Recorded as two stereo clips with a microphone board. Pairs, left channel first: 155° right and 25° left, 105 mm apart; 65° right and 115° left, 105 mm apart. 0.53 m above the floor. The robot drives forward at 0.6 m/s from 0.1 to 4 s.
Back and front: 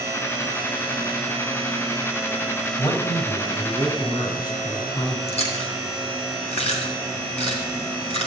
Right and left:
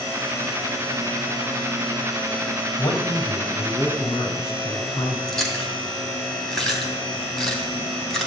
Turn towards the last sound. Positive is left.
turn(degrees=-155)